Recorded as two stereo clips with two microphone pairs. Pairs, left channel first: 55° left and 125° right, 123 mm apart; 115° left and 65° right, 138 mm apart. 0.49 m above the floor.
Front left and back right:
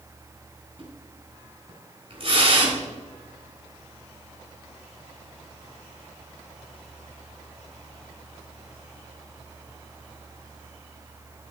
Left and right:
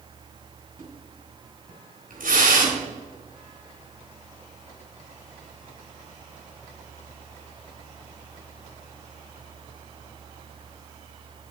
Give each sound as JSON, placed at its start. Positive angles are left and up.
{"t": 0.8, "sound": "a splash", "azimuth_deg": -85, "distance_m": 4.0}